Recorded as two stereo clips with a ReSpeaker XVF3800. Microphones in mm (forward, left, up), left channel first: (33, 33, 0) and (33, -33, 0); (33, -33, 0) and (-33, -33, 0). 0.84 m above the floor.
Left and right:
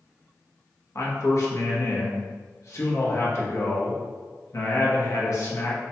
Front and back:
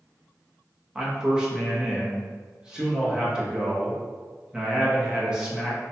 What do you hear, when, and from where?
0.9 s a man speaking: 110° left, 1.0 m